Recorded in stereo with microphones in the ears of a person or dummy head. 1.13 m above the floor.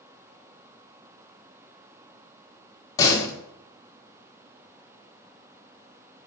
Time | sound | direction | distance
3.0 | a door slam | 20° left (ahead or behind) | 1.6 m